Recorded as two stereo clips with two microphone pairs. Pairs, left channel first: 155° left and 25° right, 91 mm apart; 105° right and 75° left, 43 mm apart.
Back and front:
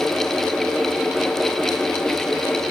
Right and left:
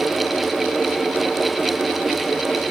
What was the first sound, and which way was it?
Only background noise.